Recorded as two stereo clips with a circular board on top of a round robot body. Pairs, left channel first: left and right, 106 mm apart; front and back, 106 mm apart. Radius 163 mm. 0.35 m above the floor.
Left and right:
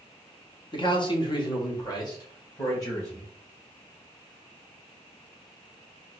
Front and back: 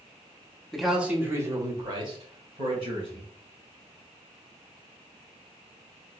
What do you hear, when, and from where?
0.7 s a man speaking: 85° left, 1.2 m; by 3.3 s 150° left, 3 m